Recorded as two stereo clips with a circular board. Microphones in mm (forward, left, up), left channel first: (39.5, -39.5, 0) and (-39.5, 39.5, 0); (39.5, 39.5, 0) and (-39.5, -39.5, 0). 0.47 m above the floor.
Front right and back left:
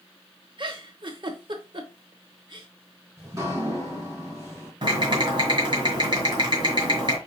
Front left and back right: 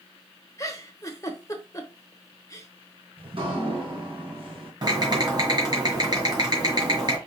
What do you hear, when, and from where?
0.6 s a giggle: 100° left, 0.9 m
3.2 s dripping: 165° right, 2.5 m
4.8 s typing on a keyboard: 175° left, 2 m